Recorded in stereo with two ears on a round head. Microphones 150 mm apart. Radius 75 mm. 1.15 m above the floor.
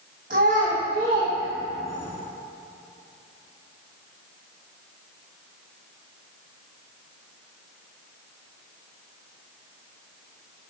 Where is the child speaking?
50° right (ahead or behind), 1.7 m; by 2.1 s 15° left (ahead or behind), 0.7 m.